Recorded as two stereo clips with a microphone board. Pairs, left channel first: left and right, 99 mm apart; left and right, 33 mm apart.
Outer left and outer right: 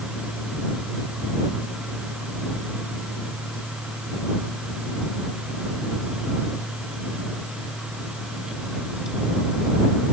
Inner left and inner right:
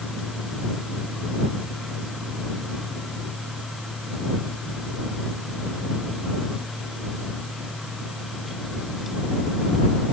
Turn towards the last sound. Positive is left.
No sound to turn to.